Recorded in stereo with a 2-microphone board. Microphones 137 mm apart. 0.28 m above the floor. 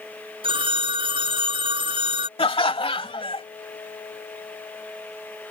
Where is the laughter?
40° left (ahead or behind).